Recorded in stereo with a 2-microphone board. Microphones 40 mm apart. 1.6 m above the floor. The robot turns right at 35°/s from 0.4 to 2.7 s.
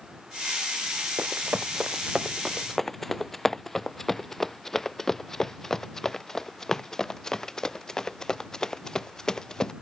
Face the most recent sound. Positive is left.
turn(degrees=15)  # may be behind; listen again after turning